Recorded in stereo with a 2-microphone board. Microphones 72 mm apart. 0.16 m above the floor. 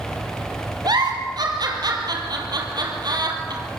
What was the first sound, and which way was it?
A giggle, 60° right (ahead or behind).